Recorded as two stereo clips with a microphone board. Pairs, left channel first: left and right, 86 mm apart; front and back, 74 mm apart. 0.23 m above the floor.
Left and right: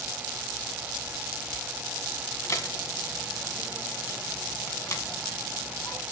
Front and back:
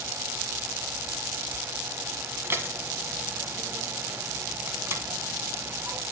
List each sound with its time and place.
2.4 s dishes clattering: 135° left, 1.3 m